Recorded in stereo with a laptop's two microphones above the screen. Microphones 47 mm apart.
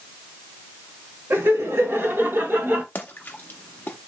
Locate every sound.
1.3 s laughter: 65° right (ahead or behind), 1.9 m; by 2.9 s 40° right (ahead or behind), 1.4 m
3.0 s a splash: 40° left (ahead or behind), 0.7 m